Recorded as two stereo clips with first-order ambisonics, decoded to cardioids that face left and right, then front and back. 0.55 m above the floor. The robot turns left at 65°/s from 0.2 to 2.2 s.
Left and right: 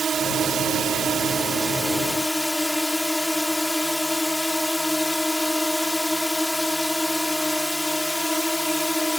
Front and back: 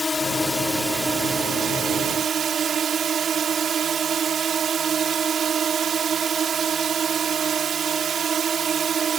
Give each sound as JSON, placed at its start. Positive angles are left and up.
{"t": 0.0, "sound": "a drone", "azimuth_deg": -60}